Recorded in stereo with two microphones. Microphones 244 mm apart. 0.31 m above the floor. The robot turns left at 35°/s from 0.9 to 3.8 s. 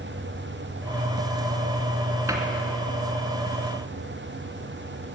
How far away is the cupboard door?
About 2.5 m.